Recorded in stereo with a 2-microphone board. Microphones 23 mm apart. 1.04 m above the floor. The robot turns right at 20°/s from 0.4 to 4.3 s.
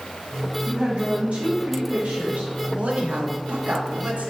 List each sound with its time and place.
0.7 s a woman speaking: 120° right, 1.3 m; by 2.5 s 85° right, 1.3 m
2.8 s a woman speaking: 115° right, 1.3 m; by 4.3 s 85° right, 1.3 m